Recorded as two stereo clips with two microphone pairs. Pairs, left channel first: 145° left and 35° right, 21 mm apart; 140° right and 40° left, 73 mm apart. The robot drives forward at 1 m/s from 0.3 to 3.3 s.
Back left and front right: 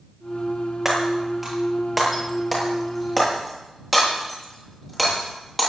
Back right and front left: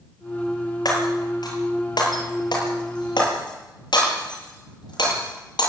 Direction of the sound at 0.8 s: 115° right.